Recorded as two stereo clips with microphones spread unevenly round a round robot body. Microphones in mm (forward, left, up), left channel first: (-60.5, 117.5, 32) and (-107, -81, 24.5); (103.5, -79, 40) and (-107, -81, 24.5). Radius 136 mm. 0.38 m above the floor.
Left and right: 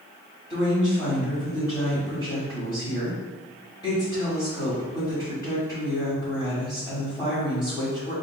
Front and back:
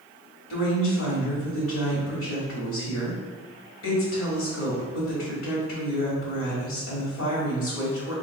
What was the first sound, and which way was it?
A woman speaking, straight ahead.